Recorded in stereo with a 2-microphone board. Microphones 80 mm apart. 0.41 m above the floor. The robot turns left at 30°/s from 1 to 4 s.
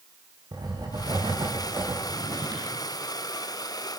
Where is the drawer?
70° right (ahead or behind), 8 m; by 2.8 s 50° right (ahead or behind), 8 m.